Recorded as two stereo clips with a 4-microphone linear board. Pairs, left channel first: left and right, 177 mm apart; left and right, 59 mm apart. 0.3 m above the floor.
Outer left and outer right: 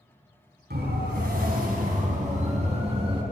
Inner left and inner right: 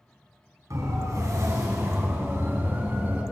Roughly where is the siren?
Right.